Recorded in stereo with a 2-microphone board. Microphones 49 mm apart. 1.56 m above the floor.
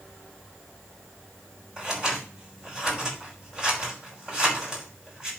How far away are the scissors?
About 5 m.